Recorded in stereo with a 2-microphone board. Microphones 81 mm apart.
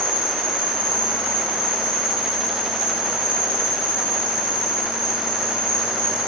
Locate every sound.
0.0 s an insect: 55° left (ahead or behind), 3 m